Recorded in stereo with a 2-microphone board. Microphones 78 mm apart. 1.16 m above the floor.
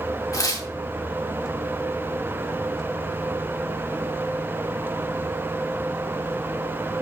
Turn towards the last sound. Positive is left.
turn(degrees=45)  # may be behind; listen again after turning